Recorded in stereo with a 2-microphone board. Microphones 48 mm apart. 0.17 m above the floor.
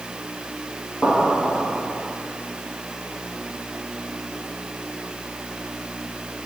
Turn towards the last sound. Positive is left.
turn(degrees=20)  # may be behind; listen again after turning